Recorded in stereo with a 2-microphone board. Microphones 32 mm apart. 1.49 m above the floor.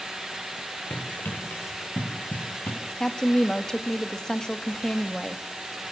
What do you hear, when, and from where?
0.9 s running footsteps: 80° left, 8 m; by 2.8 s 75° left (ahead or behind), 10 m
3.0 s a woman speaking: 20° left (ahead or behind), 2 m